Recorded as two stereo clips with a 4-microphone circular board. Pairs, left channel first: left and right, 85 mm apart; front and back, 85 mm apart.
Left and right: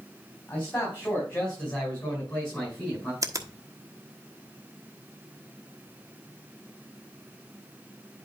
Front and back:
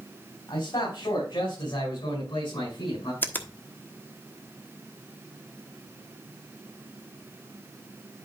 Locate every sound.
0.5 s a man speaking: 20° left, 5 m; by 3.1 s 10° left, 6.5 m
3.2 s a finger snap: 60° right, 1.2 m